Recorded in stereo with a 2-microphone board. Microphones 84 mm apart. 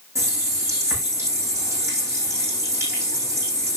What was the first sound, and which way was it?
A running tap, 35° right (ahead or behind).